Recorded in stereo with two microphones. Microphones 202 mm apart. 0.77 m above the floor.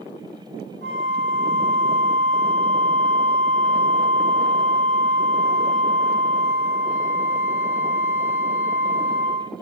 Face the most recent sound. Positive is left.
turn(degrees=-60)  # may be behind; listen again after turning